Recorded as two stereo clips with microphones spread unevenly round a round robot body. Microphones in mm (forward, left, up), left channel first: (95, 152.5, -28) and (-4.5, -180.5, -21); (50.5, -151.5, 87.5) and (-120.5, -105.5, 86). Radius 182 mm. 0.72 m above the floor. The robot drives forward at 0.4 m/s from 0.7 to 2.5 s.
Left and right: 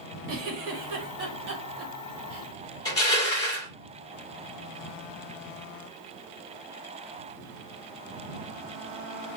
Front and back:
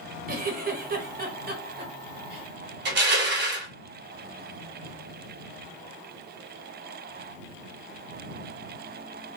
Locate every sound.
0.3 s a giggle: 160° right, 1.1 m; by 2.5 s 170° right, 1.7 m
2.9 s crushing: 155° left, 1.1 m